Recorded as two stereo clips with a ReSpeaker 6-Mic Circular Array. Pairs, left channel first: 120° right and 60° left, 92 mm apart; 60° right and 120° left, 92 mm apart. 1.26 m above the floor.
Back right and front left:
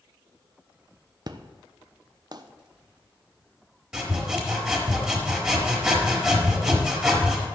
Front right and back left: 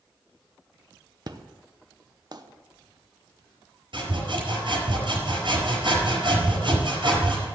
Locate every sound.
1.3 s an explosion: 90° left, 0.8 m
3.9 s sawing: 145° left, 4.5 m